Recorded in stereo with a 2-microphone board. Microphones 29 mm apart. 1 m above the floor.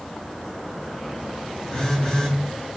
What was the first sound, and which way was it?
A phone buzzing, 20° left (ahead or behind).